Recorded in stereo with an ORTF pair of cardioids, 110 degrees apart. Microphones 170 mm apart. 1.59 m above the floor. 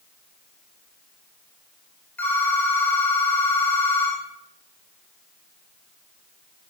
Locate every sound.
2.2 s a phone ringing: 10° left, 5.5 m